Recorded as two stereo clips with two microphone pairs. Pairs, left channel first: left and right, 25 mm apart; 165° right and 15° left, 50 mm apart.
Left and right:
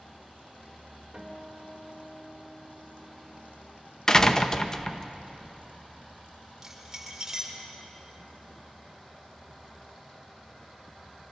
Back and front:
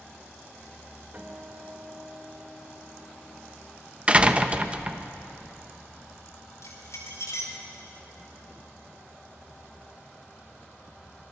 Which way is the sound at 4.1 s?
55° left.